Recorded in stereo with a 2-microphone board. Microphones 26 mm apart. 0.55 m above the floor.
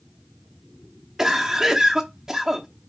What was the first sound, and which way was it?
A cough, 15° right (ahead or behind).